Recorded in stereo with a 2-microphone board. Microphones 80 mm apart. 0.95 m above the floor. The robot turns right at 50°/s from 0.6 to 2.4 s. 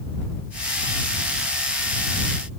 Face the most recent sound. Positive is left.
No sound to turn to.